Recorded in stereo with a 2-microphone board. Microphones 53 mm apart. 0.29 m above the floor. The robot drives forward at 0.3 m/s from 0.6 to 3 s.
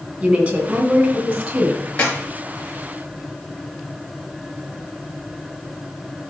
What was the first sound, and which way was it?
A woman speaking, 35° right (ahead or behind).